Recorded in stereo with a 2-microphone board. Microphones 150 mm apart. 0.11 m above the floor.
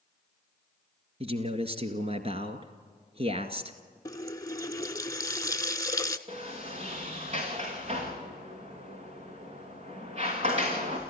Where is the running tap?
25° left (ahead or behind), 0.8 m.